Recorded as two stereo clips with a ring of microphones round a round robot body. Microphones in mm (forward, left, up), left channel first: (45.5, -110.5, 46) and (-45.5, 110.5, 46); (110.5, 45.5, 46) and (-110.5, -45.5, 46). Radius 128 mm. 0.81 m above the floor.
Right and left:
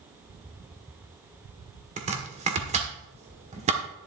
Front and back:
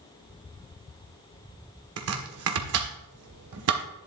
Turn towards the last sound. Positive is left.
turn(degrees=175)